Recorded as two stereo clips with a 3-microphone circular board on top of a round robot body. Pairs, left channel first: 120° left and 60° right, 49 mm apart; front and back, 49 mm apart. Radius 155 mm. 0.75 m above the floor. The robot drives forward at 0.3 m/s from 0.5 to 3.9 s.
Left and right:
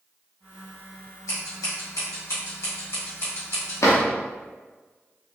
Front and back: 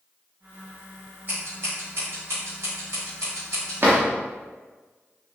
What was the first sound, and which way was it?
Scissors, 125° left.